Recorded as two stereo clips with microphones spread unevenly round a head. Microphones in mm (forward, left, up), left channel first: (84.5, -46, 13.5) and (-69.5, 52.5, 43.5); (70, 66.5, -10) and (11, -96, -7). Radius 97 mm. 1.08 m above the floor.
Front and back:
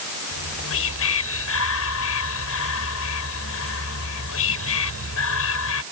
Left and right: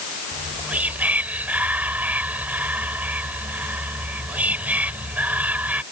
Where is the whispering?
30° right.